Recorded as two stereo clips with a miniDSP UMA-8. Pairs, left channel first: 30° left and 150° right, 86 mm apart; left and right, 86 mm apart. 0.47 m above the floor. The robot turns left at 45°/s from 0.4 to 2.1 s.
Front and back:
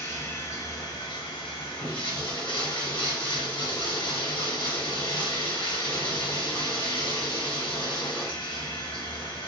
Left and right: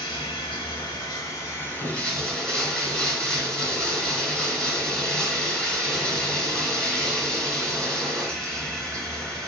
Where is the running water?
85° left, 0.7 m; by 9.5 s 5° left, 0.7 m.